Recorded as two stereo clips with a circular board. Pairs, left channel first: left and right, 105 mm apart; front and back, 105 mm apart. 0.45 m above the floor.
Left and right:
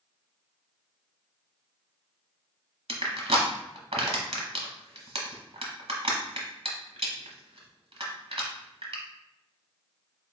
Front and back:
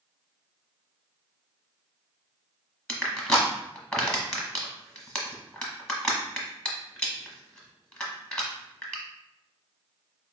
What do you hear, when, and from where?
2.9 s crushing: 80° right, 0.9 m